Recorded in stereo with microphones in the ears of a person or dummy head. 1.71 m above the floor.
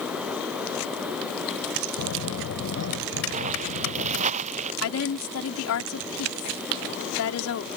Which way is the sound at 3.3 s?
40° right (ahead or behind).